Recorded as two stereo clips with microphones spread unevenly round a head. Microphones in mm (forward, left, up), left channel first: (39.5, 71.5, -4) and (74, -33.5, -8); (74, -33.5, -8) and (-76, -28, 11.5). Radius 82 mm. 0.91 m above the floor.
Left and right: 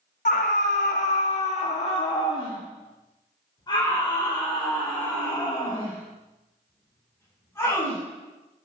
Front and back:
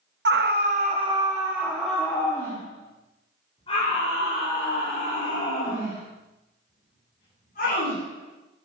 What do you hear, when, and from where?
0.2 s a scream: 150° left, 1.4 m; by 8.0 s 45° left, 7 m